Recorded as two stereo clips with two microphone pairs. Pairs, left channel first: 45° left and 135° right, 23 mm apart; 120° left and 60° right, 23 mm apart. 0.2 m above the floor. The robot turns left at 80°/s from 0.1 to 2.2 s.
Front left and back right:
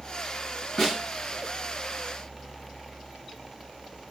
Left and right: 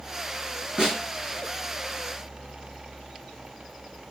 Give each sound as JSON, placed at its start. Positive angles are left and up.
{"t": 0.8, "sound": "a snare drum", "azimuth_deg": -35, "distance_m": 2.0}